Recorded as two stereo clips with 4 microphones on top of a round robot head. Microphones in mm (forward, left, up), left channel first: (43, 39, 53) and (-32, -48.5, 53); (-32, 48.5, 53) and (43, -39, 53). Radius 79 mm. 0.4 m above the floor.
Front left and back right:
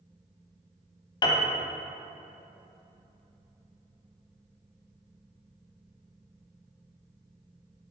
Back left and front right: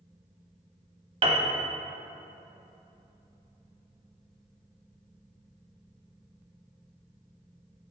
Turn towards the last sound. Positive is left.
turn(degrees=-5)